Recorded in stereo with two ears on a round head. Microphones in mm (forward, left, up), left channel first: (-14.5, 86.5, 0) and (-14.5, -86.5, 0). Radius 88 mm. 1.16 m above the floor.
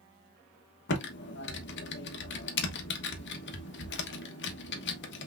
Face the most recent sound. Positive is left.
turn(degrees=65)  # may be behind; listen again after turning